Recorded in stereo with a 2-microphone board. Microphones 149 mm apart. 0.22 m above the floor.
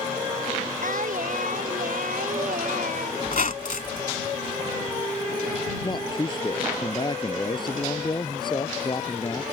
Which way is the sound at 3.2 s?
60° left (ahead or behind).